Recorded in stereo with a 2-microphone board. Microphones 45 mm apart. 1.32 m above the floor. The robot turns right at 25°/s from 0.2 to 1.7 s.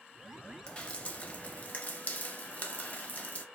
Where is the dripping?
20° left (ahead or behind), 0.6 m; by 3.5 s 35° left (ahead or behind), 0.6 m.